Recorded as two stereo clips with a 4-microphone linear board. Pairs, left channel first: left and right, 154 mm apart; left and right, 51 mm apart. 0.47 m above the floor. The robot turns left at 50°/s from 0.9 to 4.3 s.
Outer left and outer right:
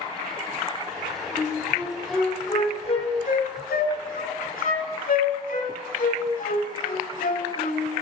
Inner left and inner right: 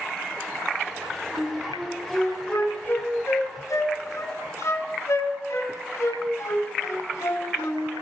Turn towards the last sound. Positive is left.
turn(degrees=65)  # may be behind; listen again after turning